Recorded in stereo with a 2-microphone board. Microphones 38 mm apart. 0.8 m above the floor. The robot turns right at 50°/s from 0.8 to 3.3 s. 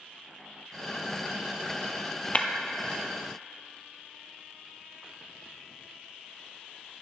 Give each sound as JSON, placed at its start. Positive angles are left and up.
{"t": 2.4, "sound": "breaking glass", "side_deg": 35, "distance_m": 0.9}